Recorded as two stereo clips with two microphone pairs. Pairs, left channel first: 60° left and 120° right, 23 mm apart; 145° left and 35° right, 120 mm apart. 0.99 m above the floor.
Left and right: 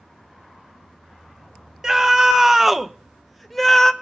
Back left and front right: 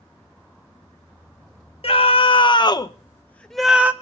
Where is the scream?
175° left, 1.0 m; by 3.9 s 5° left, 0.6 m.